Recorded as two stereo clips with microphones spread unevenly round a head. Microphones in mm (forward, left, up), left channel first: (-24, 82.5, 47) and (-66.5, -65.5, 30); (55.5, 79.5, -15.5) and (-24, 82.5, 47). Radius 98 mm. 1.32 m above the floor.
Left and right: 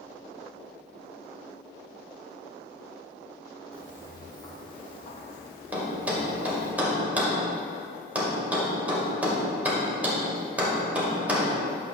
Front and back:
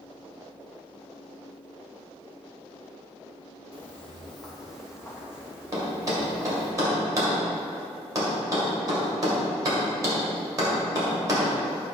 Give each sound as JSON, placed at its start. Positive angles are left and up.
{"t": 3.7, "sound": "footsteps", "azimuth_deg": 140, "distance_m": 1.4}
{"t": 5.7, "sound": "a thud", "azimuth_deg": 170, "distance_m": 2.0}